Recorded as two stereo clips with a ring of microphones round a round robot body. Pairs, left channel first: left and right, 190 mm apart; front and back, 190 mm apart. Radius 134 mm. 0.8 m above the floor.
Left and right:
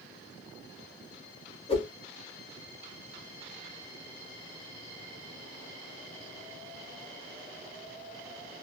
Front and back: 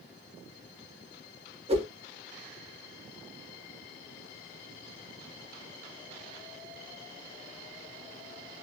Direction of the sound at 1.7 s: 140° left.